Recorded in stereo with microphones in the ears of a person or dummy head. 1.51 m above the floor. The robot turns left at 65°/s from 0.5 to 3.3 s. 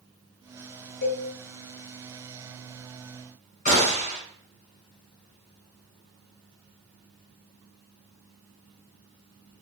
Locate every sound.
1.0 s a cowbell: 50° left (ahead or behind), 1.1 m; by 1.2 s 60° left (ahead or behind), 1.1 m
3.6 s a gunshot: 45° left (ahead or behind), 1.5 m